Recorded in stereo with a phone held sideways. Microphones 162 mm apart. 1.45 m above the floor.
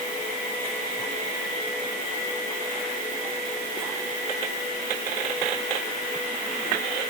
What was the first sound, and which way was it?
Only background noise.